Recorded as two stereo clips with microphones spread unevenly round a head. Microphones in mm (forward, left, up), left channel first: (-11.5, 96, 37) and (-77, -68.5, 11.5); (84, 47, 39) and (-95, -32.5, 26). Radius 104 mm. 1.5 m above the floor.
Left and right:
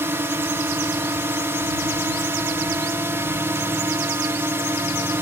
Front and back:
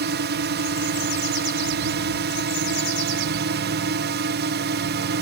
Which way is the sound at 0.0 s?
170° left.